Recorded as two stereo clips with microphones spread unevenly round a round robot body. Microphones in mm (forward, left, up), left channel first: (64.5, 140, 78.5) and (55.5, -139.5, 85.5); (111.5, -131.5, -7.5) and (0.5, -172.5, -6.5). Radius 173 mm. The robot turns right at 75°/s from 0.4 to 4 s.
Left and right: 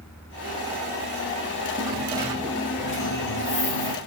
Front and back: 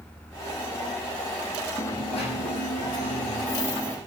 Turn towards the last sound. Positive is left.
turn(degrees=120)